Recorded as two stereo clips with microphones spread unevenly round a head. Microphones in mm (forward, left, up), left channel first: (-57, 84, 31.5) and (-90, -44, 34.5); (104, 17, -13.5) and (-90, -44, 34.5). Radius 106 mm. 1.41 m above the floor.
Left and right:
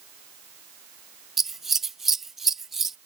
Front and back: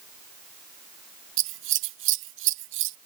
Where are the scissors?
170° left.